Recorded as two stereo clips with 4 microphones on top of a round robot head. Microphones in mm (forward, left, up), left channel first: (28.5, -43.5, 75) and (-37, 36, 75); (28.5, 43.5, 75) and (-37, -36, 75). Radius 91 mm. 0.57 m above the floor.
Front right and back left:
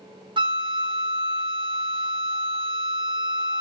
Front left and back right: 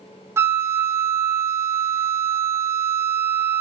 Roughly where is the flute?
Behind.